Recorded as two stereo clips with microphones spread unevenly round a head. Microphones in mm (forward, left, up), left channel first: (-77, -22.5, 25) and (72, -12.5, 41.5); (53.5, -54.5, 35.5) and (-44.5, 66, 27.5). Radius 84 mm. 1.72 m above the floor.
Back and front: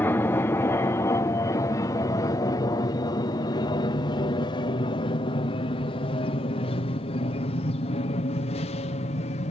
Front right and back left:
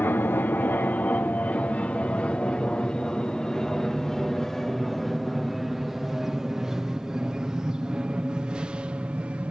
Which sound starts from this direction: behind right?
An aircraft, at 0.0 s.